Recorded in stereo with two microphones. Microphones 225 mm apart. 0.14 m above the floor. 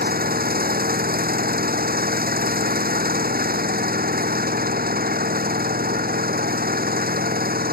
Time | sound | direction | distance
0.0 | an engine running | 40° right (ahead or behind) | ?